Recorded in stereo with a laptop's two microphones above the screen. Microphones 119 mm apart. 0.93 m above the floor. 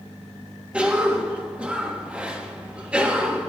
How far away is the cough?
About 1.4 m.